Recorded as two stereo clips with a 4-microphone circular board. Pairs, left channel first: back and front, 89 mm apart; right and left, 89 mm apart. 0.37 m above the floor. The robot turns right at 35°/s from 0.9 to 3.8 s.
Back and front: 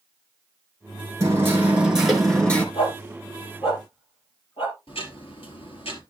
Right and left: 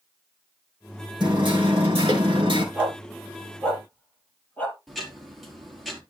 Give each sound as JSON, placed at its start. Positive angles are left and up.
{"t": 1.2, "sound": "hammering", "azimuth_deg": 55, "distance_m": 3.5}
{"t": 2.8, "sound": "a dog barking", "azimuth_deg": 160, "distance_m": 3.0}
{"t": 4.9, "sound": "ticking", "azimuth_deg": 180, "distance_m": 3.0}